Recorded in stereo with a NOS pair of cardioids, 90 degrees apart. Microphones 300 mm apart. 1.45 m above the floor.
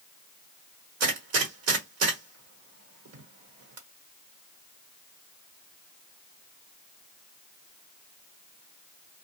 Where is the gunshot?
60° right, 1.2 m.